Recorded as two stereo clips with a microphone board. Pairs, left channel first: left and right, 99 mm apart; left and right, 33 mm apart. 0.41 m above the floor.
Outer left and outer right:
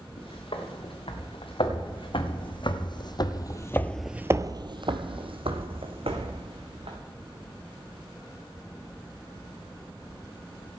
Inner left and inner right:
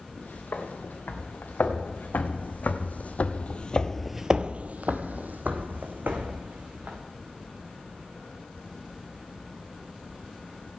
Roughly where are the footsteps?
Left.